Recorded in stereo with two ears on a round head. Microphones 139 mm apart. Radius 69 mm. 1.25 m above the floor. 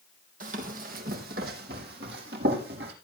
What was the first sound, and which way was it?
Running footsteps, 55° right (ahead or behind).